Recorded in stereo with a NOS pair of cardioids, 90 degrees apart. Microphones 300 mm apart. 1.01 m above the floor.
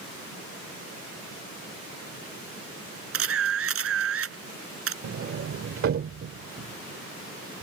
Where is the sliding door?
50° right.